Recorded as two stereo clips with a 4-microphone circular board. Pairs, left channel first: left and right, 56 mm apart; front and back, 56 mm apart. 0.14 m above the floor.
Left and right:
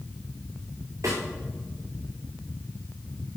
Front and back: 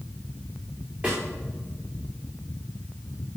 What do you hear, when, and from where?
1.0 s a snare drum: 115° right, 5 m